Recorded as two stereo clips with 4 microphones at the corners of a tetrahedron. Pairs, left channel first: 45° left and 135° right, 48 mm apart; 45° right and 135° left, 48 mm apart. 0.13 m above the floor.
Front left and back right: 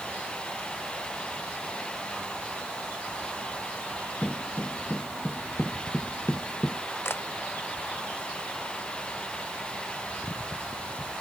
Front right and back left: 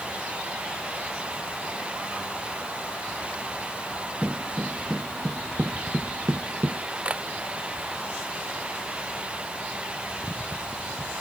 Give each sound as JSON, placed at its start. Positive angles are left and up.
{"t": 4.2, "sound": "footsteps", "azimuth_deg": 40}
{"t": 7.0, "sound": "a camera shutter", "azimuth_deg": 75}